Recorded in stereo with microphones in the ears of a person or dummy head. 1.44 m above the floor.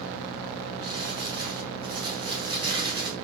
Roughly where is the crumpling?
Right.